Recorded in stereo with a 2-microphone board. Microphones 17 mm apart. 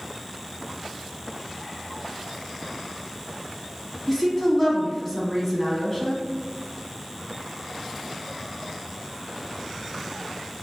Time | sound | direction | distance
4.1 | a woman speaking | 15° left (ahead or behind) | 1.1 m